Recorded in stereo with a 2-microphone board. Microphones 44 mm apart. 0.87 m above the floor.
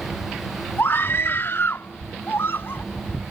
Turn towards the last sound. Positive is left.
turn(degrees=65)  # may be behind; listen again after turning